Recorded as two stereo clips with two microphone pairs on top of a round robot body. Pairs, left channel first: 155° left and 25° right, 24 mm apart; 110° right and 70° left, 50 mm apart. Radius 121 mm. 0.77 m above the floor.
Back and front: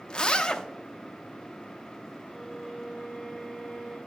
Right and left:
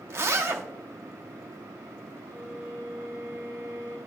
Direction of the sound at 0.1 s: 105° left.